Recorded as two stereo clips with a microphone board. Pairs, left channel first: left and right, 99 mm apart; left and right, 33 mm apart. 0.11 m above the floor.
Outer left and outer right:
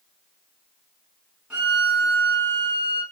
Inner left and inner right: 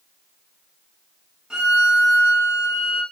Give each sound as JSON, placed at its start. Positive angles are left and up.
{"t": 1.5, "sound": "a violin", "side_deg": -10, "distance_m": 5.5}